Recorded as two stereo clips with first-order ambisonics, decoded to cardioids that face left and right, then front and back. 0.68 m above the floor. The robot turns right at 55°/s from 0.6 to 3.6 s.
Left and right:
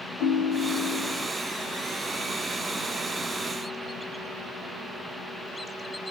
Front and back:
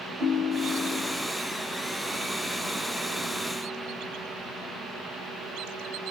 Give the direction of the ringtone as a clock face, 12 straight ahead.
8 o'clock.